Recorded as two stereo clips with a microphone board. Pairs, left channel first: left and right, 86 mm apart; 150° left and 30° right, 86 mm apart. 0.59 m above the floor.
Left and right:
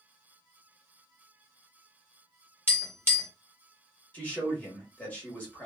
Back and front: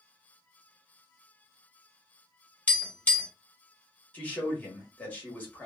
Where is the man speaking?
125° left, 1.2 m.